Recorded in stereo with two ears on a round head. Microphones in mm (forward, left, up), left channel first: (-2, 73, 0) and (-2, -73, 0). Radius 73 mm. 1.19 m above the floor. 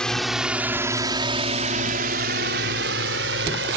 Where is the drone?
5° left (ahead or behind); by 3.8 s 80° right.